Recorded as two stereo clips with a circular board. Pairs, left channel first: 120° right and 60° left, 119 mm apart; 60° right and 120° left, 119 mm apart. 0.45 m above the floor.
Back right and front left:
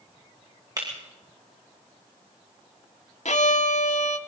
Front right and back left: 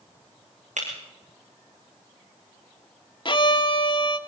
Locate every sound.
0.8 s breaking glass: 115° left, 6 m
3.2 s a violin: 105° right, 0.9 m